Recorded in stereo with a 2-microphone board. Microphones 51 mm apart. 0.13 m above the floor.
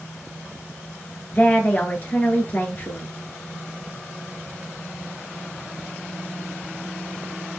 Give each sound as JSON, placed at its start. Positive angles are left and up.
{"t": 1.4, "sound": "a woman speaking", "side_deg": 35, "distance_m": 1.6}